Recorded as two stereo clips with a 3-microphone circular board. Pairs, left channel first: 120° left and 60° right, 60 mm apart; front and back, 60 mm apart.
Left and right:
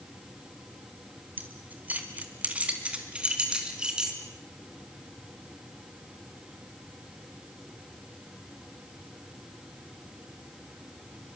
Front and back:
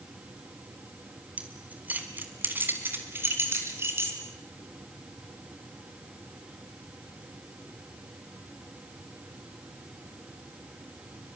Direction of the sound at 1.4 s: 115° right.